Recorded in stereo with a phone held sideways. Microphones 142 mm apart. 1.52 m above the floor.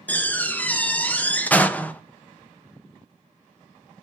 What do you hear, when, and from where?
0.1 s a door slam: 10° left (ahead or behind), 0.8 m